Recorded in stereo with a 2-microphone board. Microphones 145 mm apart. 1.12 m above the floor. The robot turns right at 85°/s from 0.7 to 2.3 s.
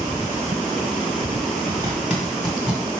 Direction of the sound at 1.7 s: 40° right (ahead or behind).